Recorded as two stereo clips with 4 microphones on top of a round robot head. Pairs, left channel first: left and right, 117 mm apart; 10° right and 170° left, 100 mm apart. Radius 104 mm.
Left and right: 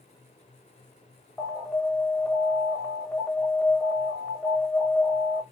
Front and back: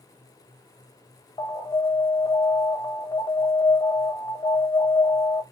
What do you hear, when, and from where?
1.4 s an alarm: 5° left, 1.0 m